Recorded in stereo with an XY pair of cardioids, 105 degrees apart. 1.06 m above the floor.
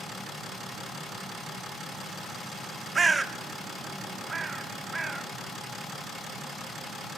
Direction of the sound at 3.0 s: 30° right.